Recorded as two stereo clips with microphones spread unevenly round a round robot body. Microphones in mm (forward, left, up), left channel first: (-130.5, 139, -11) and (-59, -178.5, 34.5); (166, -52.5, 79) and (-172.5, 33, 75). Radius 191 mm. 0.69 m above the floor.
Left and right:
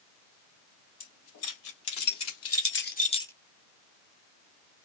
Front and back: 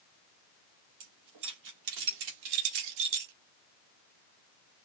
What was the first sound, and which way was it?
Keys jangling, 125° left.